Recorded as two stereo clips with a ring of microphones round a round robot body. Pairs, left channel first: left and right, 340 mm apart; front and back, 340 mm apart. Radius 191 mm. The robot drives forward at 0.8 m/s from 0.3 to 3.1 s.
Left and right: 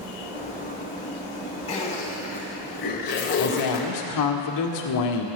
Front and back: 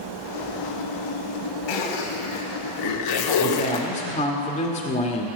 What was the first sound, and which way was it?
A zipper, 15° left.